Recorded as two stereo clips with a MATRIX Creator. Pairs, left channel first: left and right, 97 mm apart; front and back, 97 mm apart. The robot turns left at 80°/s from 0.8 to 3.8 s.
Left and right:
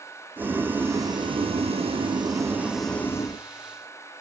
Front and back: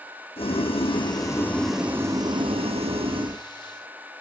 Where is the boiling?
20° right, 4 m; by 3.4 s 135° left, 4 m.